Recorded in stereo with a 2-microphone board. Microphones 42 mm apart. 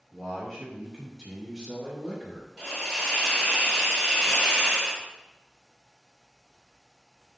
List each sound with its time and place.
0.1 s a man speaking: centre (ahead or behind), 1.4 m; by 2.5 s 10° right (ahead or behind), 1.2 m
2.6 s a hiss: 10° left (ahead or behind), 1.2 m